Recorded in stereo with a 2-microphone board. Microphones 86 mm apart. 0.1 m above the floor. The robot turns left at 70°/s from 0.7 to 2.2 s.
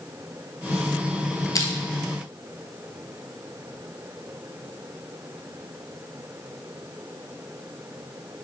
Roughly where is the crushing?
Left.